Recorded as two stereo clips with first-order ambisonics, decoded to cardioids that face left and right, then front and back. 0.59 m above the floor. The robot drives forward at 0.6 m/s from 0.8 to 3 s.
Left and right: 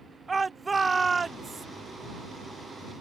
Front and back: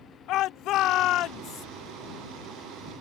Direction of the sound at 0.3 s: 15° right.